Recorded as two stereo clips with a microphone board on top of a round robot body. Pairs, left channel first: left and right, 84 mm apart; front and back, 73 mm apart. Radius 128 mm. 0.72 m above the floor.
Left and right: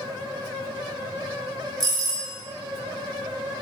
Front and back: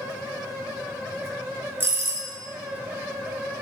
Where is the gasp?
I don't hear a gasp.